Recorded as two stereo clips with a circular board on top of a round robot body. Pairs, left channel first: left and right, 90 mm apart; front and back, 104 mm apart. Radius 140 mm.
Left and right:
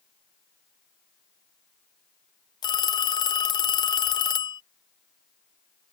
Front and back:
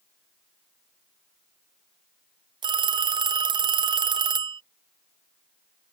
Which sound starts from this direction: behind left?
A phone ringing, at 2.6 s.